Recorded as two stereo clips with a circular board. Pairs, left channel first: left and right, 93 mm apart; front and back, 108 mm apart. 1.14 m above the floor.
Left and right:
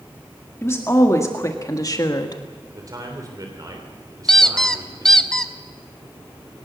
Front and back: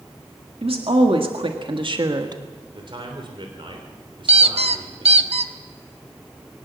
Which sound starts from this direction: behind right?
A man speaking, at 2.7 s.